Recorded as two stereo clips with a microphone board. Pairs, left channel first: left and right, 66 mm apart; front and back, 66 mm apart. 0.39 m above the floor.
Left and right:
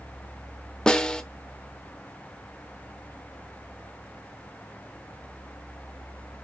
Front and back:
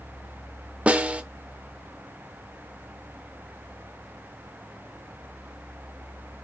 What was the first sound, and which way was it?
A snare drum, 145° left.